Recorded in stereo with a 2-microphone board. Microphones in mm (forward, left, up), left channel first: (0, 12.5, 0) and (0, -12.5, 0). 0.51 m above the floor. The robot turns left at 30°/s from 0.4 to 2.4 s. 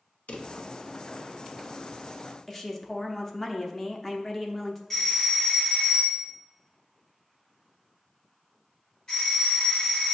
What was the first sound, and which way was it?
A drawer, 80° left.